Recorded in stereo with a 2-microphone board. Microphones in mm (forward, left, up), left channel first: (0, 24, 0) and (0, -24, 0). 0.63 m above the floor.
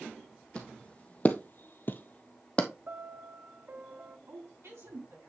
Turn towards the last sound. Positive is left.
turn(degrees=-70)  # may be behind; listen again after turning